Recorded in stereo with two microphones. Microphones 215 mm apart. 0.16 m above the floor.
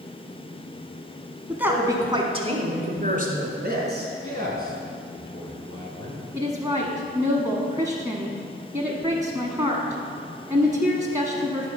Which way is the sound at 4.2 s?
20° left (ahead or behind).